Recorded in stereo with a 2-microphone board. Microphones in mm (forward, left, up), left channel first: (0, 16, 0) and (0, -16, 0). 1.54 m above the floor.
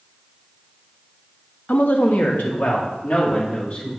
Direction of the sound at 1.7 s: 65° left (ahead or behind).